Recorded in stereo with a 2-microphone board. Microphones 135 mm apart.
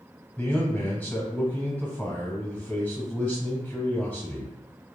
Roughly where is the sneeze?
I don't hear a sneeze.